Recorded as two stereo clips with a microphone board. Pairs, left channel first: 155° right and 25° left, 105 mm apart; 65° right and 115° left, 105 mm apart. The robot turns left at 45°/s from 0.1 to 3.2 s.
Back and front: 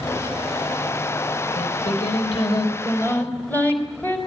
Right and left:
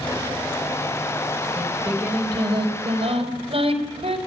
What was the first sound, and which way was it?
Singing, 160° right.